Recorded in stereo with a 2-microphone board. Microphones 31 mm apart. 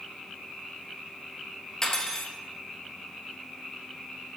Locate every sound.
1.8 s cutlery clinking: 20° left (ahead or behind), 1.1 m